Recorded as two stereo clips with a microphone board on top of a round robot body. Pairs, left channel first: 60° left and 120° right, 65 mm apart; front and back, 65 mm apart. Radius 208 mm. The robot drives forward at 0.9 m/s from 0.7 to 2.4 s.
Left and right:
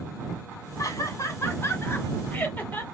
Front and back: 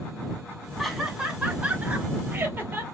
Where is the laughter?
95° left, 2.5 m; by 2.8 s 125° left, 2.5 m.